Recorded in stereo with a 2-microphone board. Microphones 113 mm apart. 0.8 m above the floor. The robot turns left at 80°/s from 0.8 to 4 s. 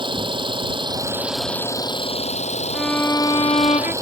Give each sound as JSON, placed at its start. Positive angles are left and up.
{"t": 0.0, "sound": "an engine running", "azimuth_deg": -130}
{"t": 2.7, "sound": "a violin", "azimuth_deg": -175}